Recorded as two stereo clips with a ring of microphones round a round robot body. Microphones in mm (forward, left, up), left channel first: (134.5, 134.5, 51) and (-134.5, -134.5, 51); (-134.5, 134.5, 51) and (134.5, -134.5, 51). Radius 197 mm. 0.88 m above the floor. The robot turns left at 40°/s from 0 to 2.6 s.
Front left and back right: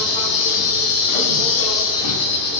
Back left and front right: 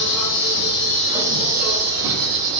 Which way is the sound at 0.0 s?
85° left.